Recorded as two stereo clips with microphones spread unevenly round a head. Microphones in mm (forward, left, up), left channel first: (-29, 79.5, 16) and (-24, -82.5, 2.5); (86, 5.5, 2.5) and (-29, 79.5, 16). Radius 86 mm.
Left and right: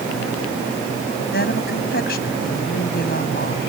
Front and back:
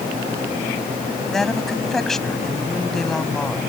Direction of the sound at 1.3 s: 55° left.